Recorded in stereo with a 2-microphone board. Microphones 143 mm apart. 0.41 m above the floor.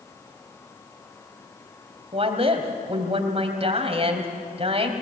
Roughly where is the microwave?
I don't hear a microwave.